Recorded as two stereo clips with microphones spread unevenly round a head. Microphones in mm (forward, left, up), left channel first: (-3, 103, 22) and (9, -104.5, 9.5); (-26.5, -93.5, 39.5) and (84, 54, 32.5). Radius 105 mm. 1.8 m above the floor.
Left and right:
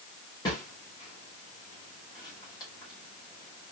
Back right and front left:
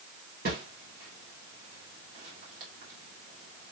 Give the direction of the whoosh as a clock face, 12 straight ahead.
11 o'clock.